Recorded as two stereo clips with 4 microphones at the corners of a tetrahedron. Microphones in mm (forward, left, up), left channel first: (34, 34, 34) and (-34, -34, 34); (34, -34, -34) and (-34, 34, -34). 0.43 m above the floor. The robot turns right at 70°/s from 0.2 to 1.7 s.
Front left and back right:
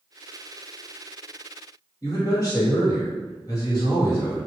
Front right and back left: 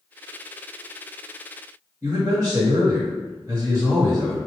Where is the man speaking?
80° left, 1.3 m.